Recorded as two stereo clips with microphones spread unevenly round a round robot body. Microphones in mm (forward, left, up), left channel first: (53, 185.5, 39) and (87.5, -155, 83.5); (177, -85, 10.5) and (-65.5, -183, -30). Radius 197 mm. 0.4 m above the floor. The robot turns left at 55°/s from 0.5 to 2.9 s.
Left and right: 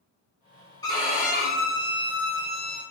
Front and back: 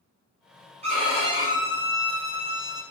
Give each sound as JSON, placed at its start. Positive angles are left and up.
{"t": 0.8, "sound": "a violin", "azimuth_deg": 160, "distance_m": 0.9}